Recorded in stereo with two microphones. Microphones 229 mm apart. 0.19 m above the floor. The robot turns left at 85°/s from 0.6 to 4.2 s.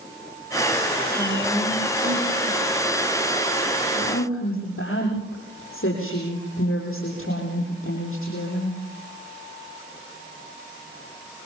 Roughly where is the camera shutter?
I don't hear a camera shutter.